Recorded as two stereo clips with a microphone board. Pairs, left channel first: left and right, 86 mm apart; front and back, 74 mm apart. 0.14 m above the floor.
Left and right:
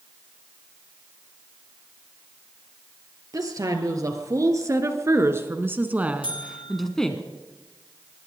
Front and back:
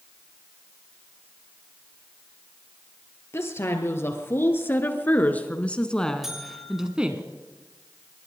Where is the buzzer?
95° left, 4 m.